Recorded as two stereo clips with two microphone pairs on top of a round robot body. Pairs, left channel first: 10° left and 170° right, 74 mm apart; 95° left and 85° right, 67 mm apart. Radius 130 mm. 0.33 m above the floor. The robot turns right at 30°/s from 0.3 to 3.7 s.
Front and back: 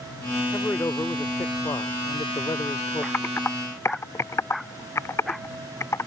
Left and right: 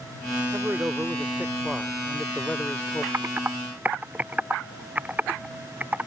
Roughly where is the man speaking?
Ahead right.